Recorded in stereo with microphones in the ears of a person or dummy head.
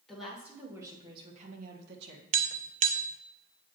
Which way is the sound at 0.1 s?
Centre (ahead or behind).